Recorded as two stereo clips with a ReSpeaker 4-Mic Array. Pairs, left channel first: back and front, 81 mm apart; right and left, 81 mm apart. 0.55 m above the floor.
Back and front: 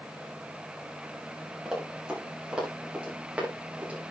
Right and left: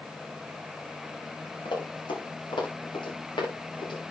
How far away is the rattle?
I don't hear a rattle.